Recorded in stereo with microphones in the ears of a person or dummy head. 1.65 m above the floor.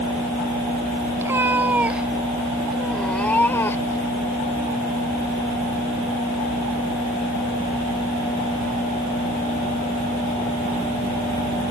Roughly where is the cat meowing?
Centre.